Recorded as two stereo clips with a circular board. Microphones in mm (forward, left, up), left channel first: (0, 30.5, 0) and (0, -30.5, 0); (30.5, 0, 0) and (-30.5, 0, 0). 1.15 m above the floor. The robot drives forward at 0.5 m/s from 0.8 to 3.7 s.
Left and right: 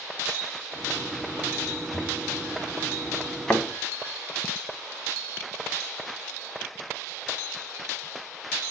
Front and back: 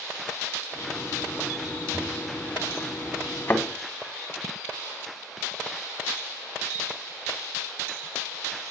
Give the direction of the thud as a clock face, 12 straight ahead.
12 o'clock.